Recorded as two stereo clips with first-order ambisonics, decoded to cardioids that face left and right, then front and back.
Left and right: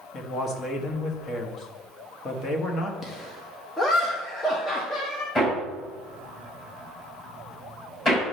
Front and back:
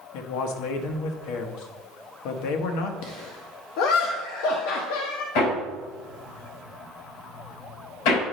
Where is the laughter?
15° left, 0.9 m.